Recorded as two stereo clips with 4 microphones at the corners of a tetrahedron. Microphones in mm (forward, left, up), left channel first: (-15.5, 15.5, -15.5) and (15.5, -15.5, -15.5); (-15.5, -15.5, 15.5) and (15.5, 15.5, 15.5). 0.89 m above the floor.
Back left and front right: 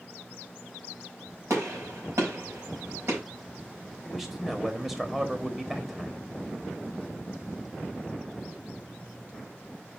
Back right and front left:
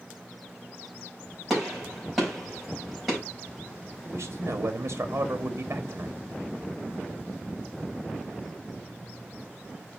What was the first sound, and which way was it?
A gunshot, 40° right.